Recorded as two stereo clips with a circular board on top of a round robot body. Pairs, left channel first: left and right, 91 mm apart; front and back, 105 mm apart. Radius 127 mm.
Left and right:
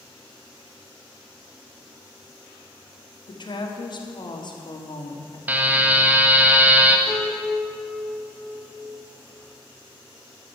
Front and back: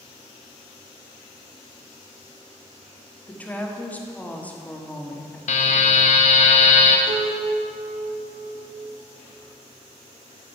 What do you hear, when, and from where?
3.3 s a woman speaking: 75° left, 1.8 m
5.5 s a buzzer: 20° right, 0.8 m
7.1 s a piano: 170° left, 1.7 m